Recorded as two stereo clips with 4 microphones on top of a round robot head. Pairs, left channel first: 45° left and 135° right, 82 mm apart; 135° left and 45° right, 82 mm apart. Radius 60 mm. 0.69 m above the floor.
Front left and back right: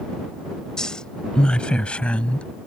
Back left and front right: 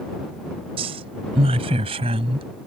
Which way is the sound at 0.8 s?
40° right.